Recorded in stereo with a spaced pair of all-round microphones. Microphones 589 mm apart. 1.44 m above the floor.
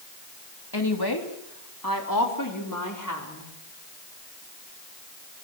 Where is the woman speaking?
40° left (ahead or behind), 3 m; by 3.5 s 30° left (ahead or behind), 4.5 m.